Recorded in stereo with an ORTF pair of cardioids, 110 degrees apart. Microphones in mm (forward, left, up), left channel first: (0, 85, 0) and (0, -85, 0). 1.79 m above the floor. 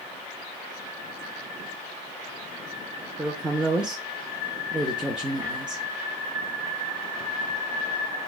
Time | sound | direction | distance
3.2 | a woman speaking | 5° right | 0.6 m